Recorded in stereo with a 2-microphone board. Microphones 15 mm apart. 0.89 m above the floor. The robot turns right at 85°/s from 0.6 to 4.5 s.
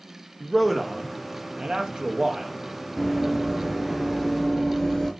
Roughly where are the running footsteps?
Centre.